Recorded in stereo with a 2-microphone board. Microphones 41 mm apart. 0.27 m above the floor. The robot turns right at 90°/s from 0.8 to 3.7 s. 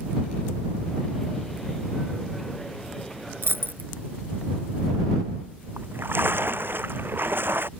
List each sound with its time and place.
3.4 s a dropped coin: 80° right; by 3.9 s 65° right (ahead or behind)
5.8 s a splash: 65° right (ahead or behind)